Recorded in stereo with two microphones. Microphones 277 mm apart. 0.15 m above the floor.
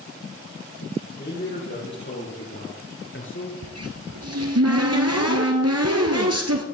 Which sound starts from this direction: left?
A man speaking, at 1.2 s.